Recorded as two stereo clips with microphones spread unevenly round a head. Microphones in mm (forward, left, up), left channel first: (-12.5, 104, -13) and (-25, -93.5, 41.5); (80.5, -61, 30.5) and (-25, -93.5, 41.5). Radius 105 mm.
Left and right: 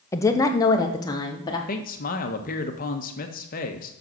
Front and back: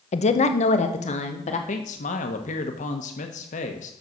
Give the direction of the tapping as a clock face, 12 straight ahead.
I don't hear tapping.